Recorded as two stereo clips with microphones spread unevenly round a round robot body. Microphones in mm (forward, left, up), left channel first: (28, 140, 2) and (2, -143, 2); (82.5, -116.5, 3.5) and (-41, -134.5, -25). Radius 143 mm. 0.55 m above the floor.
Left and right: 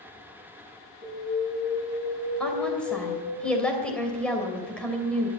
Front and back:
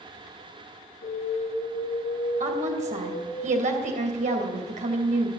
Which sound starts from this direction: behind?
A woman speaking, at 2.4 s.